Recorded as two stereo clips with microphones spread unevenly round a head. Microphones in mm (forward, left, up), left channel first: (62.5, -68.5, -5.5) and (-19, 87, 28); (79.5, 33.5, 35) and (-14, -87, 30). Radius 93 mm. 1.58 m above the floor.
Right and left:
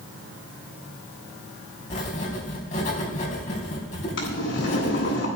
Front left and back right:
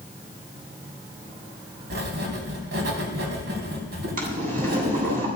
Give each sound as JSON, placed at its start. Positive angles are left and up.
{"t": 1.9, "sound": "writing", "azimuth_deg": -120, "distance_m": 3.5}
{"t": 4.2, "sound": "boiling", "azimuth_deg": -95, "distance_m": 9.0}